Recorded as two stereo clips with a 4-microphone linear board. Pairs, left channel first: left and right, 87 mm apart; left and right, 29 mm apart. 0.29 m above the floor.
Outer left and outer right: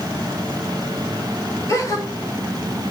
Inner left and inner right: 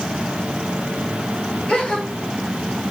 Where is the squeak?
I don't hear a squeak.